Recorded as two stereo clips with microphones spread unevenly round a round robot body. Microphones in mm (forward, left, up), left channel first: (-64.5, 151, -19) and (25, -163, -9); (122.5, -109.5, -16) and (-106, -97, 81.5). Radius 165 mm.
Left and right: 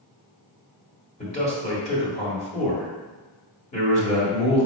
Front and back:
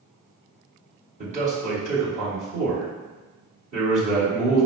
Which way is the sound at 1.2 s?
105° left.